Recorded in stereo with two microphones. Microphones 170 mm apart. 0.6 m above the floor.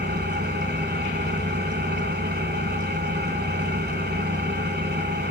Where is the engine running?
75° right (ahead or behind), 2.5 m.